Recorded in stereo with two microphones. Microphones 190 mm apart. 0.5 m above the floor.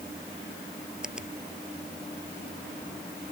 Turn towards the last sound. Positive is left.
turn(degrees=-5)  # may be behind; listen again after turning